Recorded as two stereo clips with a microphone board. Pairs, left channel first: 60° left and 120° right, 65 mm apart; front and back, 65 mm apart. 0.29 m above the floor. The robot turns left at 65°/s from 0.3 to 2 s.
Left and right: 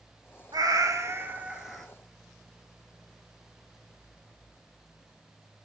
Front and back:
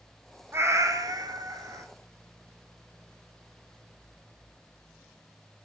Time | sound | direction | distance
0.5 | a cat meowing | 130° right | 0.6 m